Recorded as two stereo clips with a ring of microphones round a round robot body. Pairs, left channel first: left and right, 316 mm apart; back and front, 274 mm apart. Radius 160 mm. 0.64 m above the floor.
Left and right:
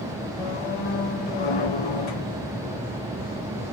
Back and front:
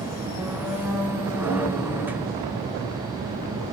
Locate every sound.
0.4 s a squeak: 85° left, 1.3 m